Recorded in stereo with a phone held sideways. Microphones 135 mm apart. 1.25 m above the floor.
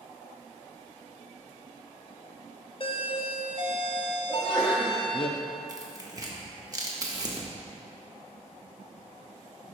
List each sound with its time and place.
2.8 s a doorbell: 40° left (ahead or behind), 0.5 m
4.3 s a sneeze: centre (ahead or behind), 1.6 m
5.7 s tearing paper: 25° right (ahead or behind), 0.8 m